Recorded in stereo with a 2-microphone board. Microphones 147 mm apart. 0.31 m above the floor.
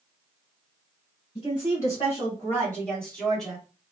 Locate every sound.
1.4 s a woman speaking: 35° left (ahead or behind), 1.7 m; by 3.6 s 5° right (ahead or behind), 2.5 m